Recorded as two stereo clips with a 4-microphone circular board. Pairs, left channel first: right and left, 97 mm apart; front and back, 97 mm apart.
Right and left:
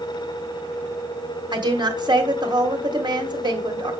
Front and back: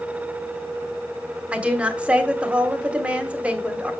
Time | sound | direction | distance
1.5 | a woman speaking | 105° left | 1.5 m